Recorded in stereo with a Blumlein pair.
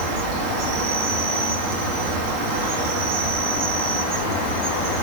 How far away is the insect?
About 1.9 m.